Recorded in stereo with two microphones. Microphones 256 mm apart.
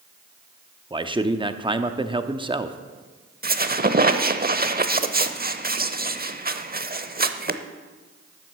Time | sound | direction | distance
0.9 | a man speaking | 20° right (ahead or behind) | 0.7 m
3.4 | a squeak | 35° right (ahead or behind) | 0.7 m